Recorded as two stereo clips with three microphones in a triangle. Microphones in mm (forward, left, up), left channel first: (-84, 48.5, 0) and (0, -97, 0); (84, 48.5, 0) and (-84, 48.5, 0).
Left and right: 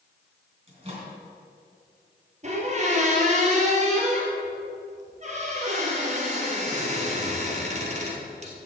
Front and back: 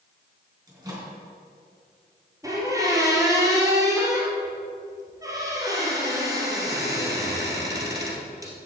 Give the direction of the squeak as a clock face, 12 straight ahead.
4 o'clock.